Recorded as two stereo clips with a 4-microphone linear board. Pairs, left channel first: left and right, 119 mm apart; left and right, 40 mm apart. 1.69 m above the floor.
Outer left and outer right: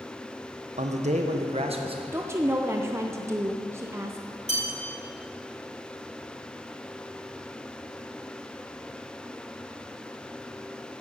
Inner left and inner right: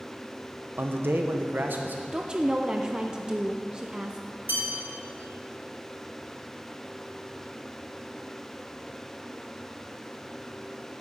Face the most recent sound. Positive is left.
turn(degrees=-65)  # may be behind; listen again after turning